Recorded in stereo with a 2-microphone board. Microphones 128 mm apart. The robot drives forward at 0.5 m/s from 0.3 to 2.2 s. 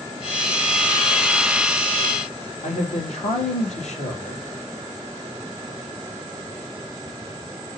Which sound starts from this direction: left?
A man speaking, at 2.6 s.